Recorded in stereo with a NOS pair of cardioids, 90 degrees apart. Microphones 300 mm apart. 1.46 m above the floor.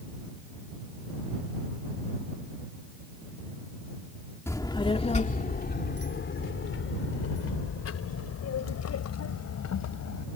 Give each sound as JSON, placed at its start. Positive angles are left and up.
{"t": 4.5, "sound": "a child speaking", "azimuth_deg": 10}